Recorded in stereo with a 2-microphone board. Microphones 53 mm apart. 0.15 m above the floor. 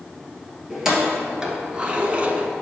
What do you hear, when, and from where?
0.7 s keys jangling: 10° right (ahead or behind), 1.7 m; by 2.5 s 25° right (ahead or behind), 0.8 m